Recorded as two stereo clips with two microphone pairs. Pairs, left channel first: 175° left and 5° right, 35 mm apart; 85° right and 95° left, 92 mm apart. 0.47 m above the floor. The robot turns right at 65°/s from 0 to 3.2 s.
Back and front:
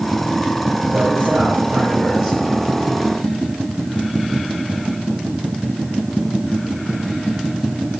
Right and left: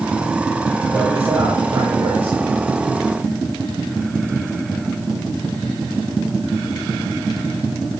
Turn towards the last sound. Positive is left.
turn(degrees=135)